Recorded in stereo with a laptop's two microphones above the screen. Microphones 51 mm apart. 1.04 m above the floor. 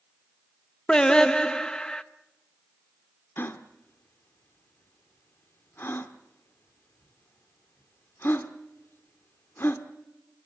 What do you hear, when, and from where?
0.9 s singing: 15° left (ahead or behind), 0.7 m
3.4 s a gasp: 50° left (ahead or behind), 1.3 m